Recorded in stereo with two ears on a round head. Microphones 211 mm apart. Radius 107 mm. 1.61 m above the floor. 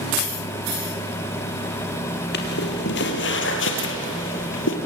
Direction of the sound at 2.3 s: 45° left (ahead or behind).